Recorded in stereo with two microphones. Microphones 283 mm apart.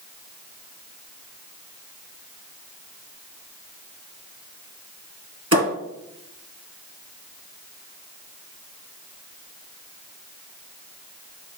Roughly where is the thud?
Right.